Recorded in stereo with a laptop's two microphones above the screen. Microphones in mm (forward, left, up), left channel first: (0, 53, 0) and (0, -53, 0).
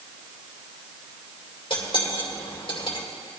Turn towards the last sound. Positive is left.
turn(degrees=55)  # may be behind; listen again after turning